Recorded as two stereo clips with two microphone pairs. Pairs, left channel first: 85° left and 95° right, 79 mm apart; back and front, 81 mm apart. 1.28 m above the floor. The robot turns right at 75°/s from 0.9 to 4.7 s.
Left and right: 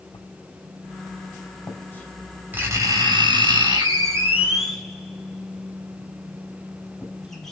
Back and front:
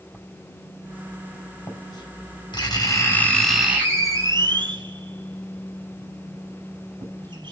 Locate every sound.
0.1 s writing: 75° left, 5 m; by 7.5 s straight ahead, 5 m